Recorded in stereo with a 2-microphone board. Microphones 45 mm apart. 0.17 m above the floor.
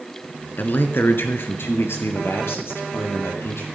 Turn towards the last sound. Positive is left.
turn(degrees=75)  # may be behind; listen again after turning